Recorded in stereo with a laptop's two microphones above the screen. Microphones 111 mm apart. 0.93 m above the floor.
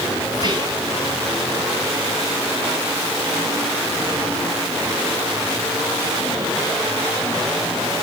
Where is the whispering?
40° right (ahead or behind), 7.5 m.